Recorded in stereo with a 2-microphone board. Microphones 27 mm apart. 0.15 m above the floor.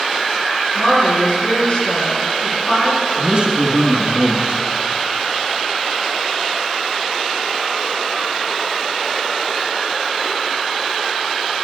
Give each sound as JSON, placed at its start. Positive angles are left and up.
{"t": 0.8, "sound": "a woman speaking", "side_deg": 45, "distance_m": 2.5}
{"t": 3.2, "sound": "a man speaking", "side_deg": -40, "distance_m": 1.3}